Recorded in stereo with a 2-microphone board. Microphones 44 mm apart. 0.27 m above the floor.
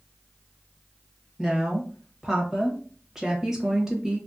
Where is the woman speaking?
10° right (ahead or behind), 1.1 m.